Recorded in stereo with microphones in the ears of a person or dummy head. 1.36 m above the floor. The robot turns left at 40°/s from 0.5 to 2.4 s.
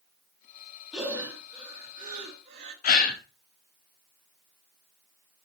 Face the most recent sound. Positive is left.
turn(degrees=40)  # may be behind; listen again after turning